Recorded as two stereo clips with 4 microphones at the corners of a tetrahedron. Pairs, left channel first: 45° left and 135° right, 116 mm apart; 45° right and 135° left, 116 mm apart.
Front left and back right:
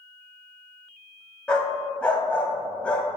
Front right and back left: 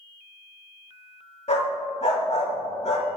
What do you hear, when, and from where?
1.5 s a dog barking: 35° right, 1.4 m